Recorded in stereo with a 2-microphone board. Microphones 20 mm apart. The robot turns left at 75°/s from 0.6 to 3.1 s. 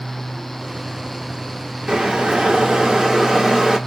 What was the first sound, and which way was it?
Boiling, 55° right.